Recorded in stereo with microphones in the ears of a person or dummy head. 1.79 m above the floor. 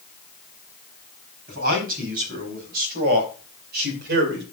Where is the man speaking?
50° right (ahead or behind), 4.5 m; by 4.4 s 60° right (ahead or behind), 2.5 m.